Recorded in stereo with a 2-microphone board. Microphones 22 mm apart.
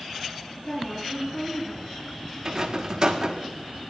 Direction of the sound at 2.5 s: 35° right (ahead or behind).